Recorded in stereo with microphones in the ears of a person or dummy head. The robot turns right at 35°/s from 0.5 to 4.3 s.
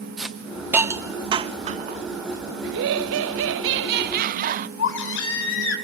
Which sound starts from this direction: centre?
A hiss, at 0.2 s.